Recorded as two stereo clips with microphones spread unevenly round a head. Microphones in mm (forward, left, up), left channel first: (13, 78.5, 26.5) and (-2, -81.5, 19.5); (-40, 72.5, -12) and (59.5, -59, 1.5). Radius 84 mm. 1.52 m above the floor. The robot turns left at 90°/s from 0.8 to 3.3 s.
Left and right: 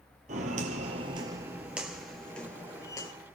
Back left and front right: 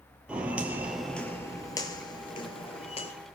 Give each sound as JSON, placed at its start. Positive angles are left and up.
{"t": 0.3, "sound": "footsteps", "azimuth_deg": -130, "distance_m": 2.0}